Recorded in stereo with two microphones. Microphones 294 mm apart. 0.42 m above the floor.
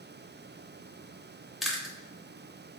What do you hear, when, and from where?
1.6 s chewing: centre (ahead or behind), 0.8 m